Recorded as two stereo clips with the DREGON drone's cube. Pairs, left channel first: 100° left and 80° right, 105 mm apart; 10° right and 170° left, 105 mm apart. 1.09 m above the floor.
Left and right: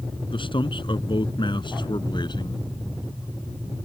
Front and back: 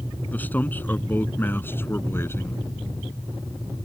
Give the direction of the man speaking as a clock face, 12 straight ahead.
10 o'clock.